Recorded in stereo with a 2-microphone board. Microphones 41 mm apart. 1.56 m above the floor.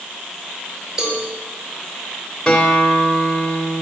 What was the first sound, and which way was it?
A cowbell, 15° right (ahead or behind).